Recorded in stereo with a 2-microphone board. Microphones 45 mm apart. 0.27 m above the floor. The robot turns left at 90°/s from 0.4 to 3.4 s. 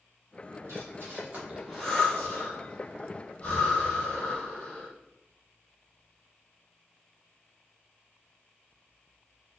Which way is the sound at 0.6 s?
75° right (ahead or behind).